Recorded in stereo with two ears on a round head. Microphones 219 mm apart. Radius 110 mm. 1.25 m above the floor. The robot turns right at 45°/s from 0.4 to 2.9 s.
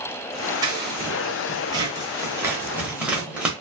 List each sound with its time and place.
0.6 s scissors: 15° right (ahead or behind), 1.0 m; by 3.5 s 5° right (ahead or behind), 1.0 m